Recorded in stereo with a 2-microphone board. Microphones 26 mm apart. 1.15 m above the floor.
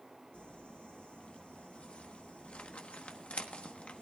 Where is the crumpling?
50° left (ahead or behind), 1.2 m.